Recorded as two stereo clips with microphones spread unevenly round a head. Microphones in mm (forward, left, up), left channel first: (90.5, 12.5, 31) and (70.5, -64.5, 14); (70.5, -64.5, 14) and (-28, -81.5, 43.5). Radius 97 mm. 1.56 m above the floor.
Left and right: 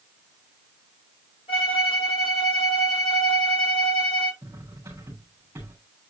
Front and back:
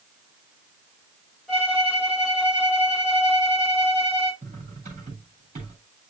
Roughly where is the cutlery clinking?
Behind.